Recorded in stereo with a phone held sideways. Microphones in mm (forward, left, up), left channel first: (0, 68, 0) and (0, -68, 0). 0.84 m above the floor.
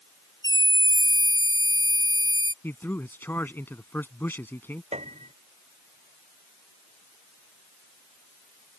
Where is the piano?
50° right (ahead or behind).